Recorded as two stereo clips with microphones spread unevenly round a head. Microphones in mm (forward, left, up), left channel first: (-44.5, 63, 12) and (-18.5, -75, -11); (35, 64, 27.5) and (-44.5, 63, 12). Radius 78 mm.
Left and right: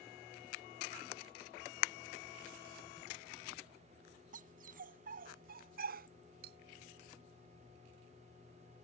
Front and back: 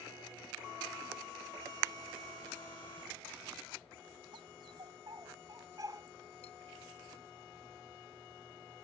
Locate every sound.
4.3 s a dog barking: 115° right; by 6.1 s 105° right
6.4 s cutlery clinking: 45° right